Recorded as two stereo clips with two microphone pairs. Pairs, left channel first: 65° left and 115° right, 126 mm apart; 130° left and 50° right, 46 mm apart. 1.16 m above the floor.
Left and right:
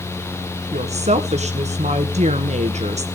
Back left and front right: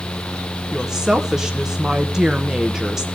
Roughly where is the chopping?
I don't hear chopping.